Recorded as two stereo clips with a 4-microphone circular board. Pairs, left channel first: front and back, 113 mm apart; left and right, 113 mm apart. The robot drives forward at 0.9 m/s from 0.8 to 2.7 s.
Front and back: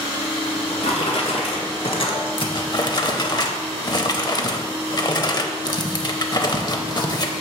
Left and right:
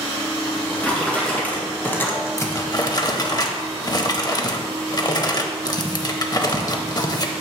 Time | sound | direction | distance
0.5 | a drawer | 10° left | 2 m